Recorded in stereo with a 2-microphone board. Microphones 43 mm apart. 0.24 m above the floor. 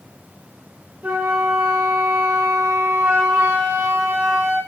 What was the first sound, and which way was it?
A flute, 35° right (ahead or behind).